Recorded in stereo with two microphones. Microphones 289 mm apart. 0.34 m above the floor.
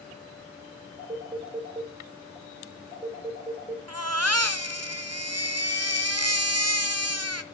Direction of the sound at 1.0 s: 20° right (ahead or behind).